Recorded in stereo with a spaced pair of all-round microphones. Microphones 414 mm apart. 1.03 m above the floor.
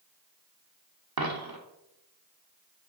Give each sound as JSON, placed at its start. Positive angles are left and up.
{"t": 1.2, "sound": "a dropped coin", "side_deg": -55, "distance_m": 0.9}